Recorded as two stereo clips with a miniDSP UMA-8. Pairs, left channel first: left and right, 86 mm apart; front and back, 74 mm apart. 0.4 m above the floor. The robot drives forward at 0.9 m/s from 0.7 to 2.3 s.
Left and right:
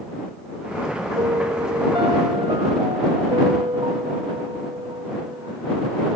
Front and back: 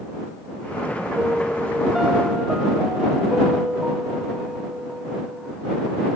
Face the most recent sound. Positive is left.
turn(degrees=-100)